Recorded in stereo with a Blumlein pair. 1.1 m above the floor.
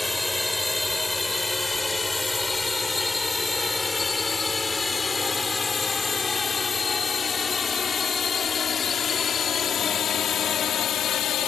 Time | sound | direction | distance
0.0 | a drone | 5° left | ?